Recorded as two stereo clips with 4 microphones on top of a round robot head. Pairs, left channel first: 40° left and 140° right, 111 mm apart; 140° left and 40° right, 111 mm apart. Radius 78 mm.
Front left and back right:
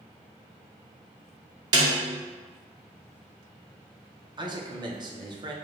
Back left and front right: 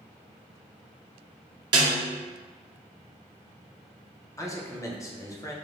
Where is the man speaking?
165° right, 0.7 m.